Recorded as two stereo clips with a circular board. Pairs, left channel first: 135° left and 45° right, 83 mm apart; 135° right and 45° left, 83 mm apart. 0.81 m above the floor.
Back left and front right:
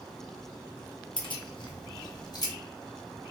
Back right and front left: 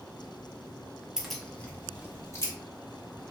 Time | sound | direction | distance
1.2 | keys jangling | 125° left | 0.6 m